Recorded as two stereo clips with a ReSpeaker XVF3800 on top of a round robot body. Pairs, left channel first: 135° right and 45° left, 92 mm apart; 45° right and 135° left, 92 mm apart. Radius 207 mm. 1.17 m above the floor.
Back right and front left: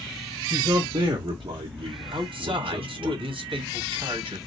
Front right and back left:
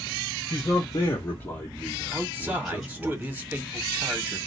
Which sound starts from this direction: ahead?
A man speaking, at 0.5 s.